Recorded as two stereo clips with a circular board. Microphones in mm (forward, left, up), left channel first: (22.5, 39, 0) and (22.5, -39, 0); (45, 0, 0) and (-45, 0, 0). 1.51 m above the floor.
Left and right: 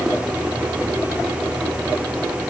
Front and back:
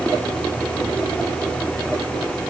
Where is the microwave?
No microwave in this recording.